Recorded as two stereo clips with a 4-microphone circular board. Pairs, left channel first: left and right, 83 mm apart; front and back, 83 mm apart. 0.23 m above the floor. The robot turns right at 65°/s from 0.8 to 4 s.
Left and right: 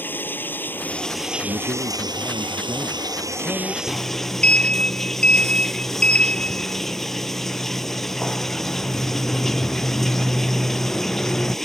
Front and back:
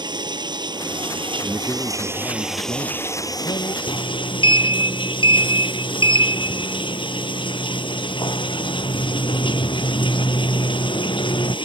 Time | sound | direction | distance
0.0 | running water | 155° left | ?
1.4 | a man speaking | 115° right | ?
3.9 | a sliding door | 5° left | ?